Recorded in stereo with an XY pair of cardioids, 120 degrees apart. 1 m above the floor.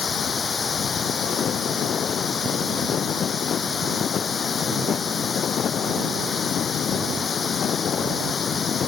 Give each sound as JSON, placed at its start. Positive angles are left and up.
{"t": 0.0, "sound": "running water", "azimuth_deg": 30}